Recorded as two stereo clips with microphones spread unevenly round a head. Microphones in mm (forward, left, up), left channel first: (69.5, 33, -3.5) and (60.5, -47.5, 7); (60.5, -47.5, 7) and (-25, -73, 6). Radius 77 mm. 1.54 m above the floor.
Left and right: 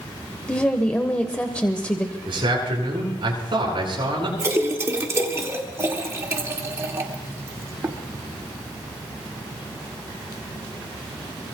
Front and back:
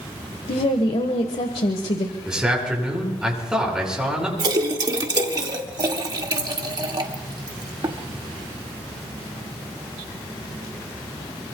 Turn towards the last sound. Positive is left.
turn(degrees=-145)